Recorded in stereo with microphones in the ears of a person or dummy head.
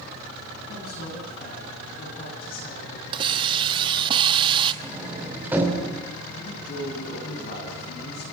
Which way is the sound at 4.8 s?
10° right (ahead or behind).